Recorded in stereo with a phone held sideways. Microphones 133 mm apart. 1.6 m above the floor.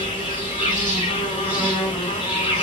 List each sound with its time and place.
0.0 s an insect: 40° left (ahead or behind), 1.9 m